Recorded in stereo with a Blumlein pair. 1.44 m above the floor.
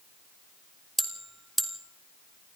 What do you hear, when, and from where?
1.0 s a bell: 5° right, 2 m